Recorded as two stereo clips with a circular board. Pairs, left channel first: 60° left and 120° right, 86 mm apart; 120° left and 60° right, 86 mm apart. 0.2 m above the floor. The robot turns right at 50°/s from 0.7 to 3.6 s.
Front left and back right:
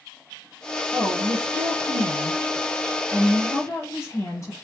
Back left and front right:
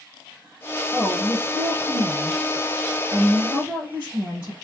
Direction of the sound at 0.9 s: 130° right.